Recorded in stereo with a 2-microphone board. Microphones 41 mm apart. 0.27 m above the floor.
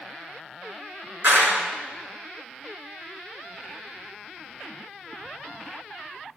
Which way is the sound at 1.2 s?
55° right (ahead or behind).